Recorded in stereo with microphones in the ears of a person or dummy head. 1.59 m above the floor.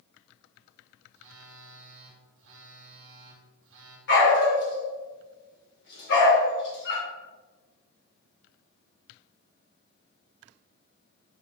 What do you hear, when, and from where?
1.1 s a phone buzzing: 60° right (ahead or behind), 1.3 m
4.1 s a dog barking: 65° left (ahead or behind), 2.5 m